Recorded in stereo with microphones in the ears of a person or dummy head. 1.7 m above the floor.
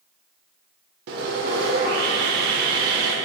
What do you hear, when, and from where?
1.1 s sawing: 55° right (ahead or behind), 0.8 m